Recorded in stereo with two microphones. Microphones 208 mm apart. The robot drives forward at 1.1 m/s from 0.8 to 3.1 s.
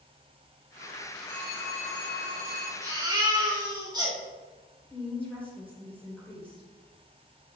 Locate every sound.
1.3 s a phone ringing: 65° right (ahead or behind), 4 m; by 2.7 s 90° right, 3.5 m
2.8 s a baby crying: 20° right (ahead or behind), 3 m
4.9 s a woman speaking: 5° left (ahead or behind), 3.5 m